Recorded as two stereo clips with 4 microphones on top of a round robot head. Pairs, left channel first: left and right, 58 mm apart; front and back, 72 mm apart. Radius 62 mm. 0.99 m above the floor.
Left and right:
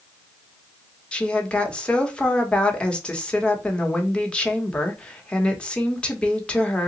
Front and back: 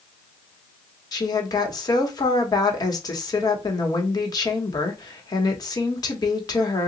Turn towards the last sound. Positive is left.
turn(degrees=20)